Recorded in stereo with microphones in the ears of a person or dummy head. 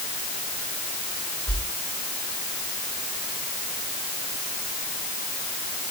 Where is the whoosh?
5° left (ahead or behind), 4.5 m.